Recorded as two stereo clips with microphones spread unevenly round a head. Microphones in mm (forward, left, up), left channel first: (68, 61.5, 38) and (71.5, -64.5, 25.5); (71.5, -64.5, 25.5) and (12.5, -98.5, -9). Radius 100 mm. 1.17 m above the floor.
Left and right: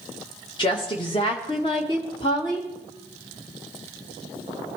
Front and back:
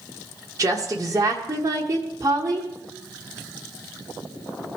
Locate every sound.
0.6 s a woman speaking: 155° left, 1.1 m